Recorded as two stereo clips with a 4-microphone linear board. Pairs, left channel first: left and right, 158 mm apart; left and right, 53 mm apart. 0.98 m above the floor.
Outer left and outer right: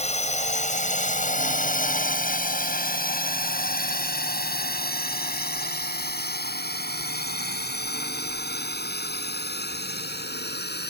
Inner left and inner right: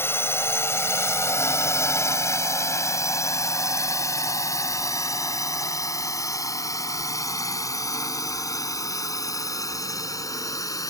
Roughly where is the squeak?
No squeak in this recording.